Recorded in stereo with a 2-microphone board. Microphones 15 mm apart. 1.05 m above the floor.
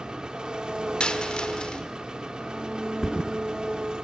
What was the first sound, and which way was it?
An engine running, 65° right (ahead or behind).